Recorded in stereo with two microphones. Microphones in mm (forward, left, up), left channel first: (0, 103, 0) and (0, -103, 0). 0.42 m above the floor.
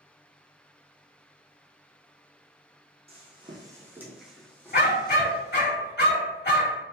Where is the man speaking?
I don't hear a man speaking.